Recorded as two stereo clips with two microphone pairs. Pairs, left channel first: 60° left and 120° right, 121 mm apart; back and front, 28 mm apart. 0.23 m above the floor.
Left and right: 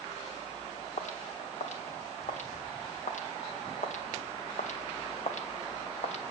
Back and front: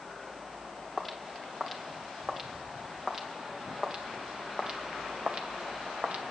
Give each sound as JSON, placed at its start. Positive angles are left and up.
{"t": 1.0, "sound": "footsteps", "azimuth_deg": 80, "distance_m": 3.5}